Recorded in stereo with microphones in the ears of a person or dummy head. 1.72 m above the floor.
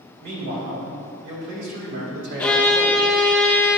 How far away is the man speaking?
About 2.5 m.